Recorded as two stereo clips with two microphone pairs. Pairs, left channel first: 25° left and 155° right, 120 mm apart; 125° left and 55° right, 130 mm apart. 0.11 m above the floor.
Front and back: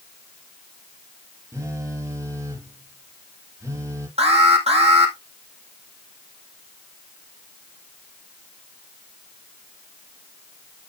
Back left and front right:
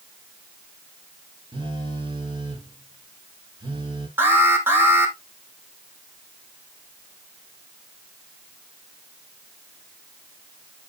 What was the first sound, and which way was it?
A phone buzzing, 95° right.